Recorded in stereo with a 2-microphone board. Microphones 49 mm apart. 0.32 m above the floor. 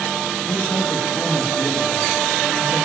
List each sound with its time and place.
0.5 s a man speaking: 5° left (ahead or behind), 7 m